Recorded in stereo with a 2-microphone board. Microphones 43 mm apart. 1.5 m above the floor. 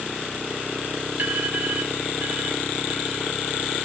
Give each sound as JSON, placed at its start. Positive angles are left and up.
{"t": 1.2, "sound": "an alarm", "side_deg": -50, "distance_m": 5.0}